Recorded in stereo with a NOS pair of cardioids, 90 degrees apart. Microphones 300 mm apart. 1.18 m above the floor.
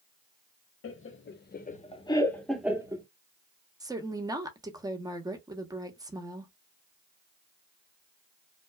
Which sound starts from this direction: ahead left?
Laughter, at 0.8 s.